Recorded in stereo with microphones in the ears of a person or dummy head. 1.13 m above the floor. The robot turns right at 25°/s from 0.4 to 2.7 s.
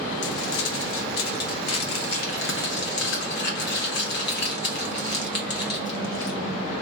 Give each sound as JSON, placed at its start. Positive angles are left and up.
{"t": 0.2, "sound": "crumpling", "side_deg": 65, "distance_m": 0.8}